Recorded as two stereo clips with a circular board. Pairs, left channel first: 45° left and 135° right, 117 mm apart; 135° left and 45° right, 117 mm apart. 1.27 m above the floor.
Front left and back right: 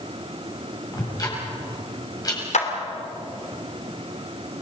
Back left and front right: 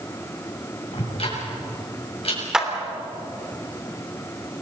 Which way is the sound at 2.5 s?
40° left.